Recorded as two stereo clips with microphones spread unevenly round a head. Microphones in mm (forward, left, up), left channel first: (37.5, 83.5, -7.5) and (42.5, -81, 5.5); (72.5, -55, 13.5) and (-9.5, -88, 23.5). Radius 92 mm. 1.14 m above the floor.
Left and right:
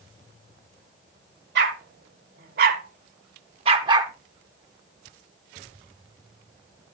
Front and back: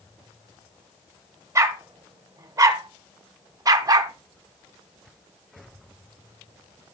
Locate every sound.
1.6 s a dog barking: 105° right, 2 m; by 4.1 s 150° right, 0.9 m